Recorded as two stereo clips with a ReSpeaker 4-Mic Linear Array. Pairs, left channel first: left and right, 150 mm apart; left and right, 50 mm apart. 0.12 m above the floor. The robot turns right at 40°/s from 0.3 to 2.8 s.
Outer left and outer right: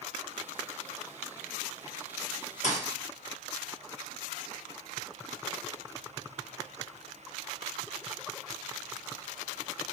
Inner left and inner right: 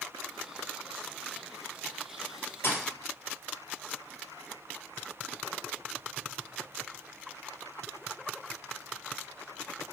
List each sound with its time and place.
2.6 s a thud: 60° left (ahead or behind), 1.1 m